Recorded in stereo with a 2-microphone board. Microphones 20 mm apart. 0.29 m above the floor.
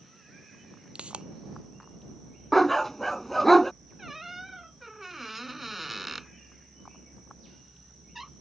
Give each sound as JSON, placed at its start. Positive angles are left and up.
{"t": 0.9, "sound": "a pop", "side_deg": -75}
{"t": 2.5, "sound": "a dog barking", "side_deg": 15}
{"t": 4.0, "sound": "a squeak", "side_deg": -10}